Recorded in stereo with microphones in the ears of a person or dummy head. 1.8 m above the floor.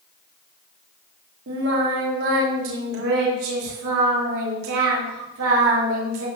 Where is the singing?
70° right (ahead or behind), 4.5 m.